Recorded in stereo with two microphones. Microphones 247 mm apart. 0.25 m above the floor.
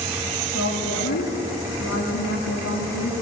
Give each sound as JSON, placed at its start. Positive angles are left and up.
{"t": 0.5, "sound": "a woman speaking", "side_deg": 70, "distance_m": 8.5}